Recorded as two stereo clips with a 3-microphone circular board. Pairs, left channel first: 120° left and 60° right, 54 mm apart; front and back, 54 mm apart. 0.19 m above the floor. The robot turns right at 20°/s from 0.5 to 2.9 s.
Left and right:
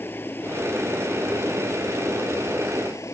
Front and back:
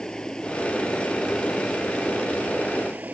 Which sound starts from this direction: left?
Running water, at 0.0 s.